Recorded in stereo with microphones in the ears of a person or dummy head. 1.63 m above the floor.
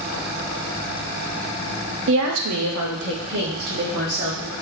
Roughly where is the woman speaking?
Right.